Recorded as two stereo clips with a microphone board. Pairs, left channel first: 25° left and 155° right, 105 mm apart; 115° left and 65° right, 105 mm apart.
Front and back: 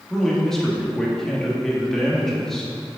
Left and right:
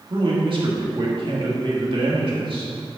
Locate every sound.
0.1 s a man speaking: 60° right, 1.8 m